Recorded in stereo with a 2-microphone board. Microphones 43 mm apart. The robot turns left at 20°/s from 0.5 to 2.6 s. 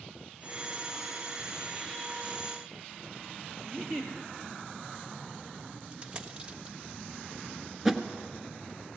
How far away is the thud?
About 1.4 m.